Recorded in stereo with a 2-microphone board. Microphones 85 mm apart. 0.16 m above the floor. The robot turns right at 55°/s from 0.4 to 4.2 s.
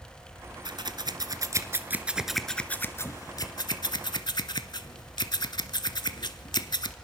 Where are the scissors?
65° right (ahead or behind), 0.9 m; by 6.9 s 60° left (ahead or behind), 0.9 m.